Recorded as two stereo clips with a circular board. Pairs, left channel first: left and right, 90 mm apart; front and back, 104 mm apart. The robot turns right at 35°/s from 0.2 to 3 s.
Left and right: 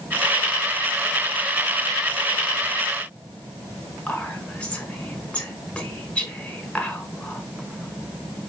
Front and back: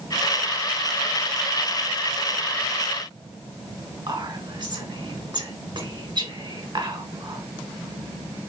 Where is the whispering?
165° left, 1.2 m.